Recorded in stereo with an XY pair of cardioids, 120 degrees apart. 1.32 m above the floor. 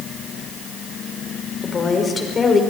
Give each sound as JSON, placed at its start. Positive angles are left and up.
{"t": 1.6, "sound": "a woman speaking", "azimuth_deg": 35, "distance_m": 5.5}